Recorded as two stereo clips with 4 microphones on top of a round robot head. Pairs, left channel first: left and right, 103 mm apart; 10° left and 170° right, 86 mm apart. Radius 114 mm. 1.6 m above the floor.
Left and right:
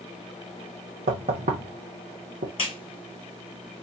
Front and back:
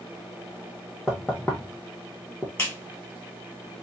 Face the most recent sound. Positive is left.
turn(degrees=65)